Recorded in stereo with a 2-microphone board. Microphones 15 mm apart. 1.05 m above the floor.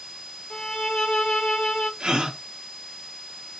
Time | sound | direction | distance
0.5 | a violin | 60° left (ahead or behind) | 1.1 m
2.0 | a gasp | 65° right (ahead or behind) | 1.3 m